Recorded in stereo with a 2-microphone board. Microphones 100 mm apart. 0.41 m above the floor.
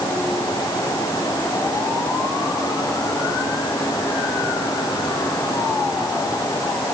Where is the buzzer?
No buzzer in this recording.